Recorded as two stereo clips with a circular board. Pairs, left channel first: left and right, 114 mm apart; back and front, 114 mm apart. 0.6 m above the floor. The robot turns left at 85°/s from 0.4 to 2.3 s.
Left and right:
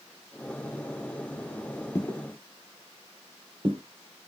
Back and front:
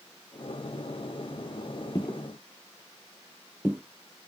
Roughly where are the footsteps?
Behind left.